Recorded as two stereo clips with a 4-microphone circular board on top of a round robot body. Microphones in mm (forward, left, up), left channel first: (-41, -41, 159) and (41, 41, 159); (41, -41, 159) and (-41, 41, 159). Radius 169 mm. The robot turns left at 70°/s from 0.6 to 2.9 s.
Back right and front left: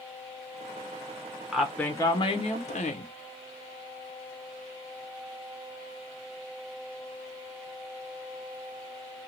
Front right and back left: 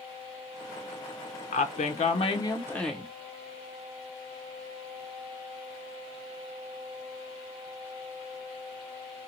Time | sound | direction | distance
1.5 | a woman speaking | 35° right | 0.7 m